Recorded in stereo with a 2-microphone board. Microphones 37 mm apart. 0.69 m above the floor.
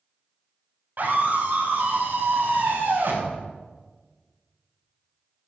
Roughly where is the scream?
Right.